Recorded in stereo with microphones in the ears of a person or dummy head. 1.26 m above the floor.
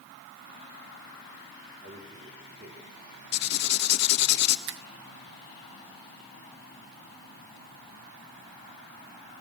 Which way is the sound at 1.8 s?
35° right (ahead or behind).